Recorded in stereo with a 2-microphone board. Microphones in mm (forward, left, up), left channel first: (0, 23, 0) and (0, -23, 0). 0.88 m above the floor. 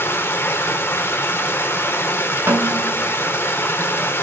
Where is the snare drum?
80° right, 2.5 m.